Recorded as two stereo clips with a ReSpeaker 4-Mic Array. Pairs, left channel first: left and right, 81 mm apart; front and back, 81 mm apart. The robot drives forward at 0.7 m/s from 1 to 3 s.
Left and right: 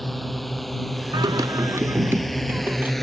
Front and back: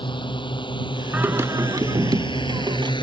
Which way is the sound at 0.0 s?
Straight ahead.